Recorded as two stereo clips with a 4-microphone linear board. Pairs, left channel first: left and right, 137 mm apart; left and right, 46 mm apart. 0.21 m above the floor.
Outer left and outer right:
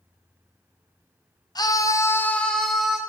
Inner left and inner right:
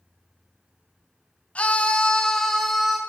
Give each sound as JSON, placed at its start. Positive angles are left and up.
{"t": 1.6, "sound": "a scream", "side_deg": 30, "distance_m": 1.3}